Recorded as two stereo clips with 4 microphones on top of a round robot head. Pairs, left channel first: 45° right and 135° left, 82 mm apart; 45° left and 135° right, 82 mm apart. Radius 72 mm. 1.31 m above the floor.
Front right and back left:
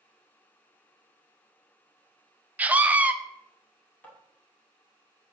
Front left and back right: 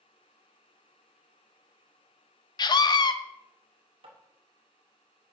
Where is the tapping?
115° right, 2 m.